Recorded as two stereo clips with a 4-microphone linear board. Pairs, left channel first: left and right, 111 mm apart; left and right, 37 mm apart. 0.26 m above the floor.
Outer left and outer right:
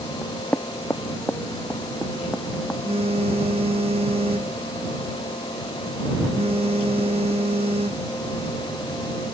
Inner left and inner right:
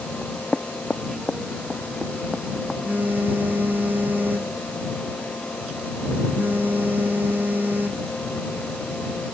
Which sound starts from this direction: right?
A phone buzzing, at 2.9 s.